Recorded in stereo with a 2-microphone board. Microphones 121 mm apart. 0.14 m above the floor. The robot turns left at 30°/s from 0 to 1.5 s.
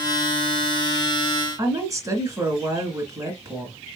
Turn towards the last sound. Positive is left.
turn(degrees=-30)  # may be behind; listen again after turning